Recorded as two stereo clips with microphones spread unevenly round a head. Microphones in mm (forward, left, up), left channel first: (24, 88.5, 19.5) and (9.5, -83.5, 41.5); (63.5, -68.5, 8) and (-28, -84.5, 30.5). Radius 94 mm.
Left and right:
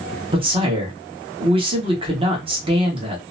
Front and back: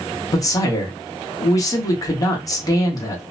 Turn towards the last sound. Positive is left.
turn(degrees=-35)